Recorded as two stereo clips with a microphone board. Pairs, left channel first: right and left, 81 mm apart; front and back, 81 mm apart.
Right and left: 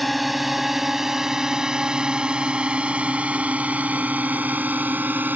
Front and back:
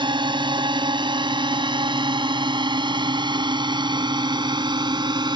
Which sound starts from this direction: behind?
A drone, at 0.0 s.